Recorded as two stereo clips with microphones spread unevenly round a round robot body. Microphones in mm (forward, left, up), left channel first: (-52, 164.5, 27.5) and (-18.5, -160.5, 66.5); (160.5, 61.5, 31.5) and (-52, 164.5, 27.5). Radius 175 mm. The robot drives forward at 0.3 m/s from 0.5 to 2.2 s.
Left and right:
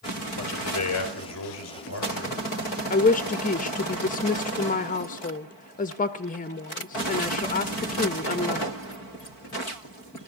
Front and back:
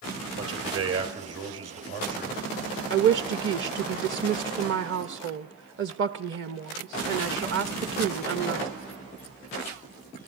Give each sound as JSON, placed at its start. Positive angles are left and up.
{"t": 0.4, "sound": "a man speaking", "azimuth_deg": 135, "distance_m": 3.0}
{"t": 2.9, "sound": "a woman speaking", "azimuth_deg": 150, "distance_m": 0.6}